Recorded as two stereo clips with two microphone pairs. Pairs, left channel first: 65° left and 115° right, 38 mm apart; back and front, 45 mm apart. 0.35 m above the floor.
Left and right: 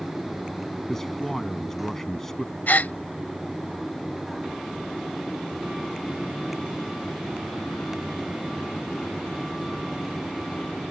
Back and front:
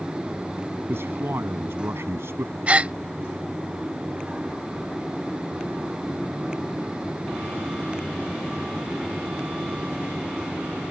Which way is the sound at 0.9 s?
10° right.